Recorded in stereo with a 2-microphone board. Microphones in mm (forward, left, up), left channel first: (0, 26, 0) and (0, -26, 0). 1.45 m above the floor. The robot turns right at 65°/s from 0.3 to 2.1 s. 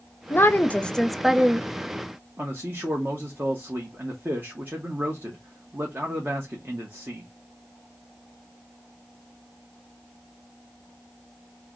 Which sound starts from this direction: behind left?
A woman speaking, at 0.3 s.